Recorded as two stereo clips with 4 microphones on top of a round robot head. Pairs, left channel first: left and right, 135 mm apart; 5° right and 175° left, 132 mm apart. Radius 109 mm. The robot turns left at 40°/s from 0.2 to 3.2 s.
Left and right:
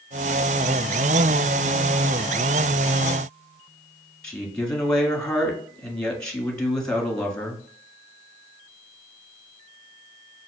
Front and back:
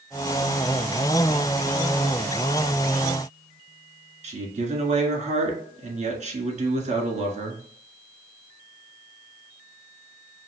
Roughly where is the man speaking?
Behind.